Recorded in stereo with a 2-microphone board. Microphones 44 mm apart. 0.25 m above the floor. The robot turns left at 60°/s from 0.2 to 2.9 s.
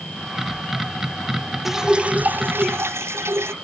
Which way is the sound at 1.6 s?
5° right.